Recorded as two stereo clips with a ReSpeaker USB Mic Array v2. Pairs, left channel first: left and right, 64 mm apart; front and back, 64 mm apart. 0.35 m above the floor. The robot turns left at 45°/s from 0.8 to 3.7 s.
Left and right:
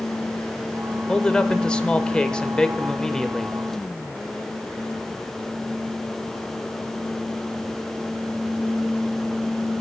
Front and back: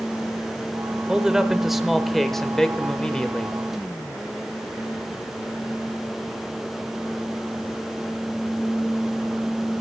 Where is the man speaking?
130° left, 0.8 m; by 3.6 s 15° left, 0.8 m.